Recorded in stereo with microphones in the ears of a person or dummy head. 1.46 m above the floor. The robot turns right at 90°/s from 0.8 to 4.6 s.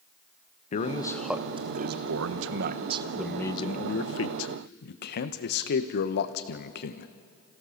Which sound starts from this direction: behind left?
A man speaking, at 0.7 s.